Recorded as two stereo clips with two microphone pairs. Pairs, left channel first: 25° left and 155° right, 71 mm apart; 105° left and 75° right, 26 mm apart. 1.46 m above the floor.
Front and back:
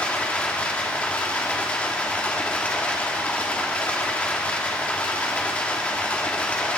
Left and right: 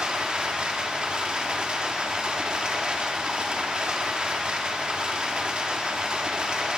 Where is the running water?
45° right, 1.4 m.